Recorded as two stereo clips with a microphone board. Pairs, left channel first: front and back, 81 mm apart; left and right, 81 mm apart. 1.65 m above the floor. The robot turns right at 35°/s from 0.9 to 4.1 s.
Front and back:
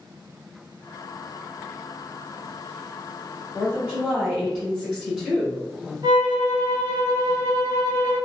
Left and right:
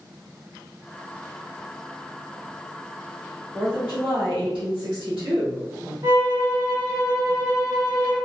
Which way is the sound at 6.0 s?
140° right.